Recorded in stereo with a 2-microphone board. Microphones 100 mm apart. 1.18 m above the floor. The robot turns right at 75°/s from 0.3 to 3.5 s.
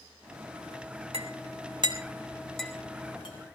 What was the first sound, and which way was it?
A clink, 70° right (ahead or behind).